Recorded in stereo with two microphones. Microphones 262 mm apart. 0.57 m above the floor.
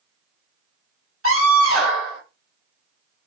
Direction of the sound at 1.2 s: 55° right (ahead or behind).